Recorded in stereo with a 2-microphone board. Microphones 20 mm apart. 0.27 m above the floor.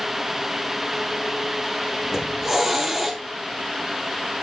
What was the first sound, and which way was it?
A hiss, 15° right (ahead or behind).